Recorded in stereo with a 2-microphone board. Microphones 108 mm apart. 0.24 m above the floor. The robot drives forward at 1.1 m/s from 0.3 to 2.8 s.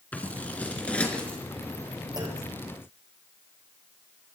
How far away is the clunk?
About 5 m.